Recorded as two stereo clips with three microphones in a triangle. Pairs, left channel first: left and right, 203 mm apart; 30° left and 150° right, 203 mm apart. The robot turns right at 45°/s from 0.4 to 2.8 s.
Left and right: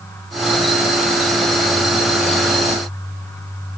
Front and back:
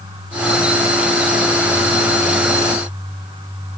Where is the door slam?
I don't hear a door slam.